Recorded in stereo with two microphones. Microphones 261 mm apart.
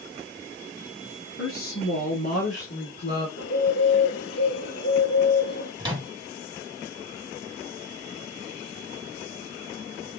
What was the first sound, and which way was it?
A woman speaking, 60° left (ahead or behind).